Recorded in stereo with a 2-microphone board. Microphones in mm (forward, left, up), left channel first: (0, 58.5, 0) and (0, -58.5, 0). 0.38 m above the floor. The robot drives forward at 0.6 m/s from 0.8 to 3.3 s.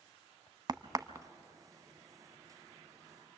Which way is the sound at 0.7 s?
35° right (ahead or behind).